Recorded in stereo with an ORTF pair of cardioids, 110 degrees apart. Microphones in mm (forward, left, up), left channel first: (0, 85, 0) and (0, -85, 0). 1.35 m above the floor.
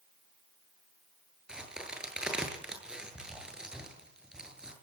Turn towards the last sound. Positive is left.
turn(degrees=-5)